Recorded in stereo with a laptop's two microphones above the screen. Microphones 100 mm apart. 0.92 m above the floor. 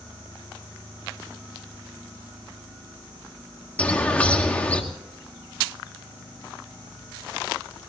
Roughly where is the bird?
Centre.